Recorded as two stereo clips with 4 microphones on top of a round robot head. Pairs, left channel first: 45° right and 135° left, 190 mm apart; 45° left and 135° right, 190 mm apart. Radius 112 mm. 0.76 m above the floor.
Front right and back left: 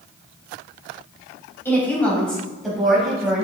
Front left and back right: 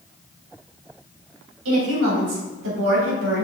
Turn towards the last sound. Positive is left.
turn(degrees=-140)